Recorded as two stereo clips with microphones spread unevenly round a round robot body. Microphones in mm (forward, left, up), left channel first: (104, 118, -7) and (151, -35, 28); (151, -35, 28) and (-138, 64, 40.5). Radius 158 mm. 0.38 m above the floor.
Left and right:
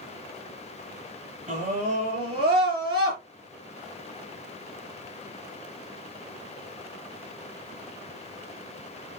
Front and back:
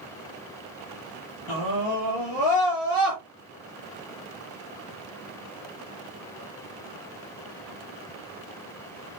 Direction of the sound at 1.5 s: 40° right.